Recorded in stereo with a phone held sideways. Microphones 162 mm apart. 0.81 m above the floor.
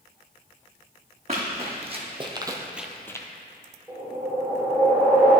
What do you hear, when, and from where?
1.3 s running footsteps: 40° right (ahead or behind), 2 m; by 3.3 s 20° left (ahead or behind), 0.9 m
3.9 s a whoosh: 10° right (ahead or behind), 2.5 m